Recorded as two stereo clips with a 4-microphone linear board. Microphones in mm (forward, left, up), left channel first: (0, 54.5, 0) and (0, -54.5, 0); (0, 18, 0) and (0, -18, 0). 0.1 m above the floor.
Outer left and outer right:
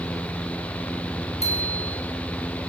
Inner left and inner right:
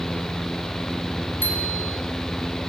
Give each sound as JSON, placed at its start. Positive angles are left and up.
{"t": 1.4, "sound": "a bicycle bell", "side_deg": 80, "distance_m": 6.0}